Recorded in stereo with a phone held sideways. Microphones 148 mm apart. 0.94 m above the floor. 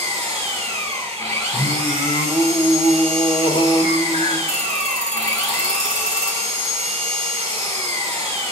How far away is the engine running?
About 2.5 m.